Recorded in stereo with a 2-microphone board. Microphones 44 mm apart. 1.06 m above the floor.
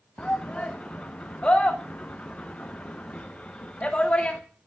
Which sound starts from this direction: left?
A shout, at 0.2 s.